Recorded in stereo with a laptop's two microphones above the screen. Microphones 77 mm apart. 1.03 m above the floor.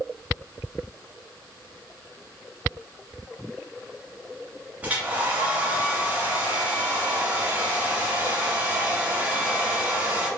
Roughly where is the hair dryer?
Centre.